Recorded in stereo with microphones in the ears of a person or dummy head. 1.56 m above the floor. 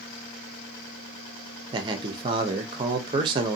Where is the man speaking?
25° right (ahead or behind), 0.6 m.